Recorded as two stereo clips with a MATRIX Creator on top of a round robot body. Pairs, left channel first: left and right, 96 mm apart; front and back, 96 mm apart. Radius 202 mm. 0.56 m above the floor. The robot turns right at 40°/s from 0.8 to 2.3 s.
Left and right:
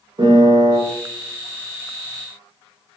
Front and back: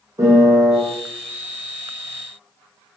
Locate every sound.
0.2 s a piano: 125° right, 0.9 m